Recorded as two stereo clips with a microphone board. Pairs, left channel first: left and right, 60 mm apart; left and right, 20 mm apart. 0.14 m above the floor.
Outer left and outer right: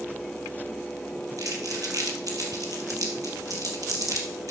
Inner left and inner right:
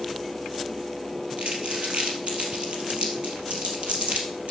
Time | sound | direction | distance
1.4 | crumpling | 65° right (ahead or behind) | 3 m